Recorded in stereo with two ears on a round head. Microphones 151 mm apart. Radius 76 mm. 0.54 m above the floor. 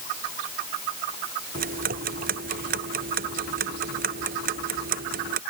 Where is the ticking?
65° right (ahead or behind).